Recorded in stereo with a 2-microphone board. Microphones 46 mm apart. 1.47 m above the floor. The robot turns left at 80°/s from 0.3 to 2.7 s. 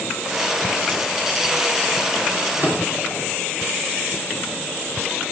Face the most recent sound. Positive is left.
turn(degrees=-35)  # may be behind; listen again after turning